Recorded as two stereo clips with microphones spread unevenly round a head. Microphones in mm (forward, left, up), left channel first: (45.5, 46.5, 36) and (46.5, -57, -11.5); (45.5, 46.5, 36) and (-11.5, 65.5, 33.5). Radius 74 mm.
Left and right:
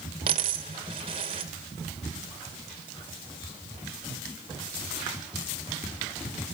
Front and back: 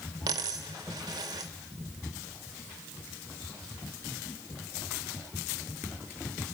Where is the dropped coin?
160° right, 0.9 m.